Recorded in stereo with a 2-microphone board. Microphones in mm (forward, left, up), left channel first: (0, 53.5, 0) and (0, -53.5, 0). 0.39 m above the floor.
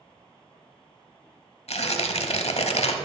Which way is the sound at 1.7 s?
80° left.